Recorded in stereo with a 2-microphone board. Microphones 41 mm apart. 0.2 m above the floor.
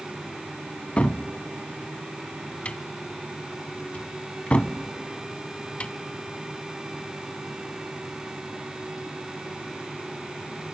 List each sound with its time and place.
1.0 s a cupboard door: 35° left (ahead or behind), 0.5 m